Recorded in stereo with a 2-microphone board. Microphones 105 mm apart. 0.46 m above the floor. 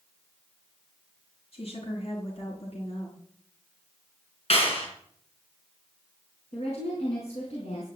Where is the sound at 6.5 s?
80° left, 4 m.